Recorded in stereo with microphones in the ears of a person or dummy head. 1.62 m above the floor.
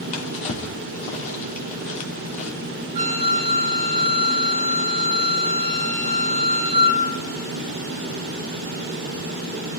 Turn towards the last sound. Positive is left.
turn(degrees=-35)  # may be behind; listen again after turning